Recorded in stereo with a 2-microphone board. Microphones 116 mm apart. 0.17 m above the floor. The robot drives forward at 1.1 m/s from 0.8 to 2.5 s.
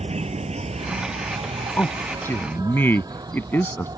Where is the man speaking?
15° left (ahead or behind); by 3.9 s 20° left (ahead or behind).